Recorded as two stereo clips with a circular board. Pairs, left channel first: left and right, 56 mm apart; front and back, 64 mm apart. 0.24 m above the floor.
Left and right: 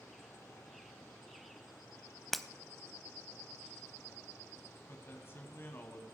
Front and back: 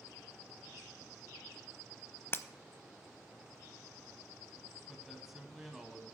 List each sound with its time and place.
2.3 s breaking glass: 5° left, 0.6 m
4.9 s a man speaking: 95° left, 1.7 m